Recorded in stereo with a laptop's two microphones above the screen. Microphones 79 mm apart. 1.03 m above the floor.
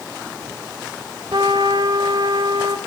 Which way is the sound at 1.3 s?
55° right (ahead or behind).